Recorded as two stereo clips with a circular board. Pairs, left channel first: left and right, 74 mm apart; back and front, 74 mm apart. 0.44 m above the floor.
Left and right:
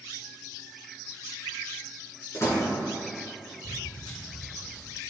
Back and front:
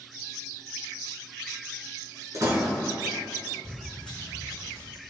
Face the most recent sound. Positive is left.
turn(degrees=115)